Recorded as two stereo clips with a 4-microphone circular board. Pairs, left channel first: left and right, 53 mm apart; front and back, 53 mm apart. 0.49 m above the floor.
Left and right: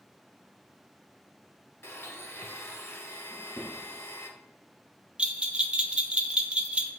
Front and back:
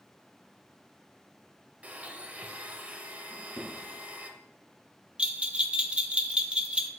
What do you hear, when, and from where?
1.8 s a blender: 125° left, 0.8 m
3.3 s a drawer: 25° left, 3 m
5.2 s a bell: 135° right, 0.6 m